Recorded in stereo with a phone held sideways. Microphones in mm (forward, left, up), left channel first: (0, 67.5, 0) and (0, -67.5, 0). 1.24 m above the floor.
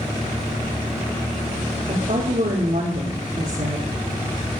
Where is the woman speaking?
60° right (ahead or behind), 3 m.